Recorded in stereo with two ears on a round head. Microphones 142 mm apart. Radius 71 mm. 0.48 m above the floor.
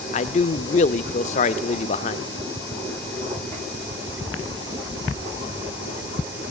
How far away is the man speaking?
About 0.9 m.